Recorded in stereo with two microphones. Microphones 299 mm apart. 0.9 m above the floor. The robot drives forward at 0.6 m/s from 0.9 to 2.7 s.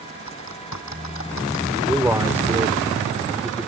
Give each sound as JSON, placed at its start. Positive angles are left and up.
{"t": 0.3, "sound": "typing on a keyboard", "side_deg": 60}
{"t": 1.8, "sound": "a man speaking", "side_deg": -5}